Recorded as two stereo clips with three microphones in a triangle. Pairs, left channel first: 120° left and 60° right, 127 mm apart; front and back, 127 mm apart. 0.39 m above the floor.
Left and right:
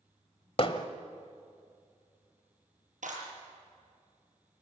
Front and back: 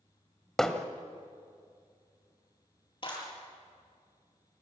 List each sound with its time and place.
0.6 s hammering: 85° left, 1.2 m
3.0 s a clap: 50° right, 8 m